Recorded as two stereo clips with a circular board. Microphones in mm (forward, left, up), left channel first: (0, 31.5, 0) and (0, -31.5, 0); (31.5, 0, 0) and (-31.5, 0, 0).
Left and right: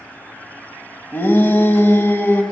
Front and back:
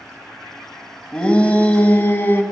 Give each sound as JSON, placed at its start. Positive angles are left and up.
{"t": 1.1, "sound": "a shout", "azimuth_deg": 65, "distance_m": 1.4}